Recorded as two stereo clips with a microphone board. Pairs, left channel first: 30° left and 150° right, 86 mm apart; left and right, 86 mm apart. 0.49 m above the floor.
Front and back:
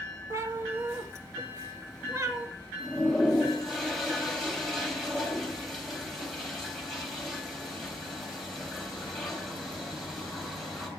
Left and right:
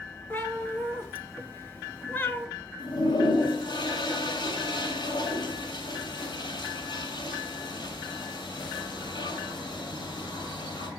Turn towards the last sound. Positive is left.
turn(degrees=120)